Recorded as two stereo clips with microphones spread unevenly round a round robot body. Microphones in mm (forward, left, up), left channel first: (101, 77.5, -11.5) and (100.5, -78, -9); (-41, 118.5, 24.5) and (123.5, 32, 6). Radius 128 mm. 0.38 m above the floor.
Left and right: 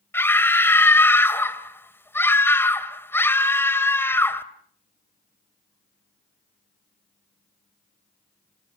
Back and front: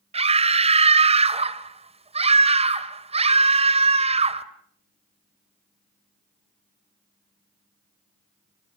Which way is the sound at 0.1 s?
15° left.